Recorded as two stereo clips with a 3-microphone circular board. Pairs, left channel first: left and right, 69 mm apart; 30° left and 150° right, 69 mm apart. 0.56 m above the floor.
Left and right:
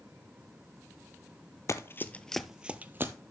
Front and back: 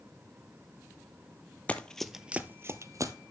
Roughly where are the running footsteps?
Left.